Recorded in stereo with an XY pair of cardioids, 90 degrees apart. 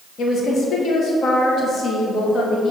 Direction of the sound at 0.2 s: 60° left.